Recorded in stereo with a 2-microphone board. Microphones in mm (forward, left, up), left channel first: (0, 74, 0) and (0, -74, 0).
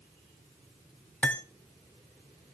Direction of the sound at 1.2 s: 10° left (ahead or behind).